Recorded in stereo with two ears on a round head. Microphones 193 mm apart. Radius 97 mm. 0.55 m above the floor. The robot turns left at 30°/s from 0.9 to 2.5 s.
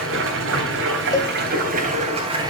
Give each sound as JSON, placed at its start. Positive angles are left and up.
{"t": 0.0, "sound": "running water", "azimuth_deg": -110, "distance_m": 3.0}
{"t": 1.1, "sound": "a cowbell", "side_deg": 15, "distance_m": 0.5}